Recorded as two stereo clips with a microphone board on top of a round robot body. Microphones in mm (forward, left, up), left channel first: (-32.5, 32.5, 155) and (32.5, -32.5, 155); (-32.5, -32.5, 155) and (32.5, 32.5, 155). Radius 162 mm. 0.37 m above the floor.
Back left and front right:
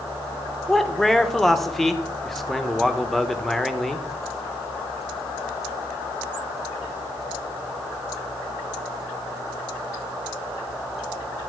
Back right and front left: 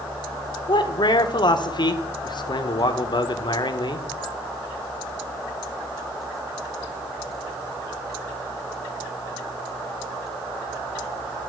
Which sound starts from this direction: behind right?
A man speaking, at 0.7 s.